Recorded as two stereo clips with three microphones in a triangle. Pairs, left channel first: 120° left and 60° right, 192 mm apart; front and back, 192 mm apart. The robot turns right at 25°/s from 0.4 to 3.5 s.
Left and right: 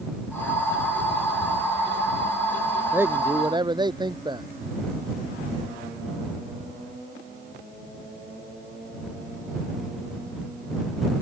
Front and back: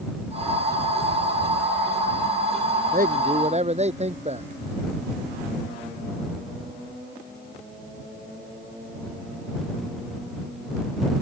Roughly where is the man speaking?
Behind right.